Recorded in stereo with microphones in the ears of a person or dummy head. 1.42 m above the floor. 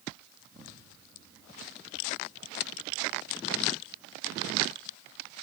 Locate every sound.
0.4 s an explosion: 10° right (ahead or behind), 1.5 m